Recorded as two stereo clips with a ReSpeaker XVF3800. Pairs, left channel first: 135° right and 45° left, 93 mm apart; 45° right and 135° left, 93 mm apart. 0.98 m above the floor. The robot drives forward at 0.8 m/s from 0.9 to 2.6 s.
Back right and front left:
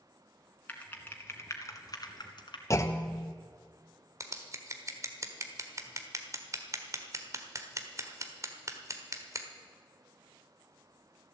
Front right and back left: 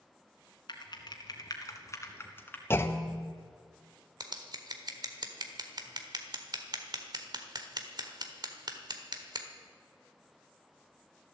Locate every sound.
0.7 s typing on a keyboard: 65° right, 1.8 m; by 2.6 s 115° right, 1.8 m
2.7 s a clunk: 95° right, 0.8 m
4.2 s scissors: 100° left, 1.4 m